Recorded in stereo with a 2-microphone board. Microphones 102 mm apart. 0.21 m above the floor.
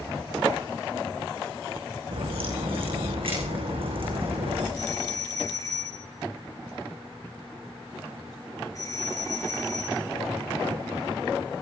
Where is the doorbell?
35° left (ahead or behind), 4 m.